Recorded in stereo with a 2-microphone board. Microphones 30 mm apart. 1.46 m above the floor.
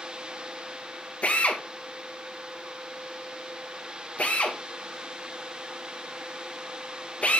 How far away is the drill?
About 2 m.